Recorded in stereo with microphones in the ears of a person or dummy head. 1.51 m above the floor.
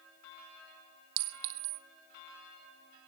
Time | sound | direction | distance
1.2 | a clink | 50° right (ahead or behind) | 1.0 m